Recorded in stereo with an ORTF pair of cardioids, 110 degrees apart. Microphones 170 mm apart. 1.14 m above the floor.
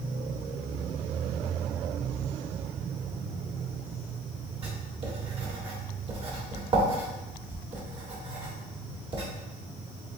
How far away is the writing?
About 1.7 m.